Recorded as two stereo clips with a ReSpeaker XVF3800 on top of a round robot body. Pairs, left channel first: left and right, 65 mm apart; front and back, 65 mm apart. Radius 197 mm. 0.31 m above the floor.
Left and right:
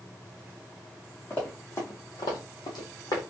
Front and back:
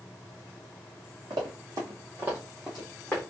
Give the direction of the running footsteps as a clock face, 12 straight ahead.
7 o'clock.